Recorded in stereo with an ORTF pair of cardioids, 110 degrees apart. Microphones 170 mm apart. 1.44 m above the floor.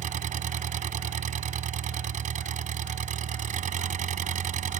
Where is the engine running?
50° right.